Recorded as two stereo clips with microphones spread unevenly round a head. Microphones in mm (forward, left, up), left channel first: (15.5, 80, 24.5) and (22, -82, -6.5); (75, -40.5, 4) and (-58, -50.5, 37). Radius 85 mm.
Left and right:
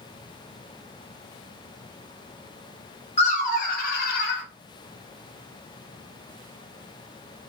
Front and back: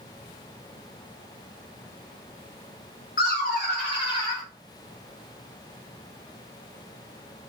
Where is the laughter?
45° left, 1.3 m; by 4.4 s 80° left, 1.1 m.